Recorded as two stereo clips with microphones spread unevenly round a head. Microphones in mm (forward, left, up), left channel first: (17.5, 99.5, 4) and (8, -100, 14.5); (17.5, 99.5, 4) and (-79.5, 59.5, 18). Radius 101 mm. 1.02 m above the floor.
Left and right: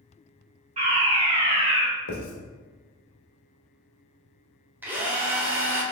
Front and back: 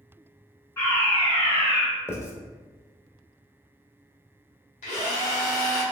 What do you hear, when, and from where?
0.8 s a fire alarm: 40° right, 1.9 m
2.1 s writing: 90° left, 1.0 m
4.8 s a drill: 10° right, 0.7 m